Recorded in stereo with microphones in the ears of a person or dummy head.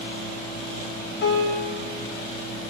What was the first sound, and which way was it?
A piano, 60° left (ahead or behind).